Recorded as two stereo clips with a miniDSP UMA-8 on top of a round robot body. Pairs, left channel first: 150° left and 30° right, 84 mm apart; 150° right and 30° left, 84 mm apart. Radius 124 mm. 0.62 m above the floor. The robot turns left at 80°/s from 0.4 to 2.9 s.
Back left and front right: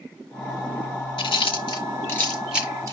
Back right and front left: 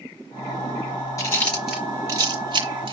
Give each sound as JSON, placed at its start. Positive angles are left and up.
{"t": 1.2, "sound": "chewing", "azimuth_deg": 160, "distance_m": 5.0}